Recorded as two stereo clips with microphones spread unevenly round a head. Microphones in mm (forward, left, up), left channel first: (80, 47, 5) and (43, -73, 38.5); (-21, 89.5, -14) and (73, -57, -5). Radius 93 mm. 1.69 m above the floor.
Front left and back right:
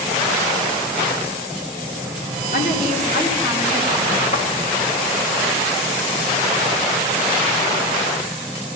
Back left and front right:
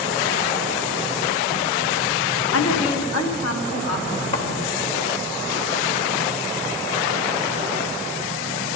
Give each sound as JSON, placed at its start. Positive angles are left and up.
{"t": 2.5, "sound": "a woman speaking", "azimuth_deg": 120, "distance_m": 1.0}
{"t": 4.3, "sound": "a thud", "azimuth_deg": 110, "distance_m": 1.4}